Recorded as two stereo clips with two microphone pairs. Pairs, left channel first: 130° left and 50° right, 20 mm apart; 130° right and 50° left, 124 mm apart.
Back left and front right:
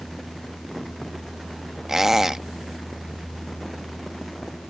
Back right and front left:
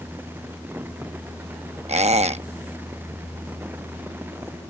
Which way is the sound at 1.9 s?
25° left.